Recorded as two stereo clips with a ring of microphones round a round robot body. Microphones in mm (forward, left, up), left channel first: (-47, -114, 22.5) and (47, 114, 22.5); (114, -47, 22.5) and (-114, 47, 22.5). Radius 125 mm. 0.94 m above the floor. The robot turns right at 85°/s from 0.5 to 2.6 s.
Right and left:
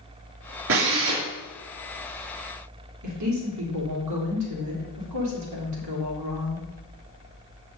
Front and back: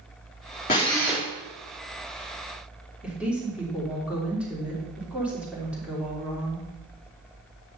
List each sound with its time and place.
0.7 s a drill: 30° left, 2.5 m; by 1.2 s 80° left, 2.5 m
3.0 s a woman speaking: 70° left, 3 m